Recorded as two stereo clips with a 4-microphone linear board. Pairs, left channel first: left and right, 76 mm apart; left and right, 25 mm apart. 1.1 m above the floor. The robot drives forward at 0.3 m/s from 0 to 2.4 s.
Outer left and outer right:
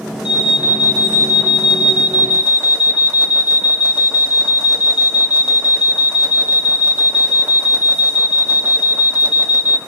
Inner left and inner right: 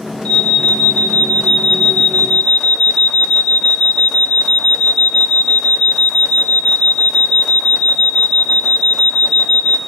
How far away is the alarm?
About 3.5 m.